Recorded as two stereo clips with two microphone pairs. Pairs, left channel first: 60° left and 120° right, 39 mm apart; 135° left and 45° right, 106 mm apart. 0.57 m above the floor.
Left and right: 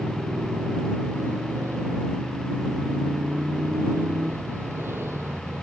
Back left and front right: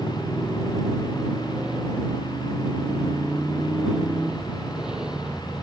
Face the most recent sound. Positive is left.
turn(degrees=-130)